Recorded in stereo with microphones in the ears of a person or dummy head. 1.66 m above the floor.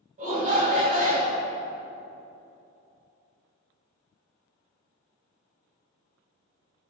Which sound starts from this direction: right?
A shout, at 0.2 s.